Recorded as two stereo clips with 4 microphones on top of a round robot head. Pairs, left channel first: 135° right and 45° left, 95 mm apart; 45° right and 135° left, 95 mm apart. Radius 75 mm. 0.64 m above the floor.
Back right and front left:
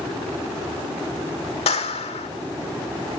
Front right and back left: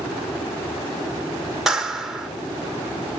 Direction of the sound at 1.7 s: 140° right.